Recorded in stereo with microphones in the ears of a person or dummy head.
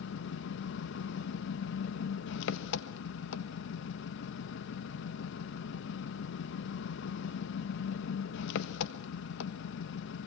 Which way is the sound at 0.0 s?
75° left (ahead or behind).